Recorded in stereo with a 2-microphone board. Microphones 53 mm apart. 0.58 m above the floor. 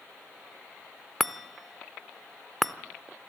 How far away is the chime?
About 0.6 m.